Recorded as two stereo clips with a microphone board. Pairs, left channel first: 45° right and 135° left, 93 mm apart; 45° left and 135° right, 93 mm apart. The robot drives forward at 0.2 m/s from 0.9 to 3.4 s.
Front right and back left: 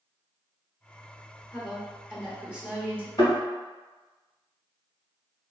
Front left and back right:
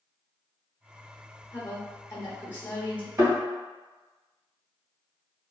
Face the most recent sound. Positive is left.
turn(degrees=-90)